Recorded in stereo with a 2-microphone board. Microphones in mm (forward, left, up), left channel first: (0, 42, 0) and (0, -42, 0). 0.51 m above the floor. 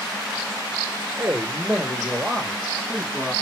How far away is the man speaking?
About 1.4 m.